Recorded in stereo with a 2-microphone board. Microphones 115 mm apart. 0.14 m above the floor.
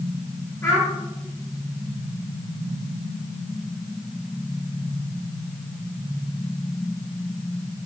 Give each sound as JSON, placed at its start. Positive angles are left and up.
{"t": 0.6, "sound": "a child speaking", "side_deg": 25, "distance_m": 1.5}